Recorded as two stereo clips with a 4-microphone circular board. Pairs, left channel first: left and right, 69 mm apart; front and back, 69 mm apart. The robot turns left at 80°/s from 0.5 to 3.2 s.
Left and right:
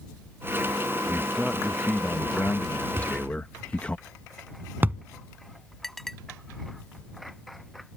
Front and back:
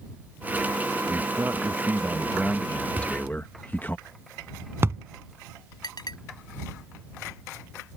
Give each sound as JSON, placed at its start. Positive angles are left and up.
{"t": 1.1, "sound": "a man speaking", "azimuth_deg": -155}
{"t": 3.0, "sound": "a thud", "azimuth_deg": -125}
{"t": 5.8, "sound": "a clink", "azimuth_deg": 5}